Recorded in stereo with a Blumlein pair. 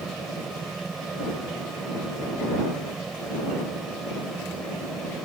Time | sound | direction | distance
0.0 | a fan | 10° right | ?